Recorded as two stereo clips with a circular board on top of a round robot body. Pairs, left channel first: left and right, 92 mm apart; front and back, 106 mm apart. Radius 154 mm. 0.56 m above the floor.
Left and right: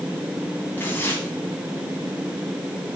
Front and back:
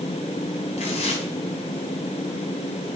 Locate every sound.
0.8 s tearing paper: 20° left, 2 m